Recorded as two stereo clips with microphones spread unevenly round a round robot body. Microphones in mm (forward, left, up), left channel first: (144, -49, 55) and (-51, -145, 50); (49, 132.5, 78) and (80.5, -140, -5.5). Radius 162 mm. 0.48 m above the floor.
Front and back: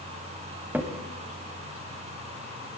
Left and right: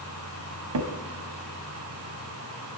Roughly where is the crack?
Right.